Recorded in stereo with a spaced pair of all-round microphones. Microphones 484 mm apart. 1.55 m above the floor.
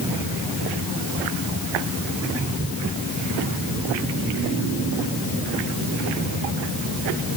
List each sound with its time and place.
Only background noise.